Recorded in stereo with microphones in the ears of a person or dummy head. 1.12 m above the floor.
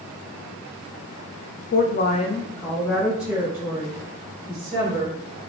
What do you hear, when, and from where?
1.7 s a woman speaking: 40° left (ahead or behind), 0.7 m; by 5.4 s 20° right (ahead or behind), 2.5 m